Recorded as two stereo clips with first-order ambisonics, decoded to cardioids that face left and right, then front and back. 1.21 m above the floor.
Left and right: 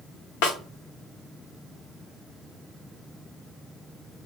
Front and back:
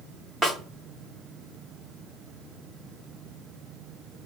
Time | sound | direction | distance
0.4 | a snare drum | 100° left | 1.0 m